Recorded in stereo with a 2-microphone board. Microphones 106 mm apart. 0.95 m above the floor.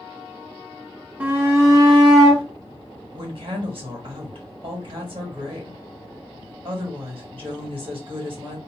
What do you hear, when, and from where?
1.2 s a shout: 15° right (ahead or behind), 1.0 m; by 2.4 s 50° right (ahead or behind), 1.3 m
3.1 s a woman speaking: 55° right (ahead or behind), 1.4 m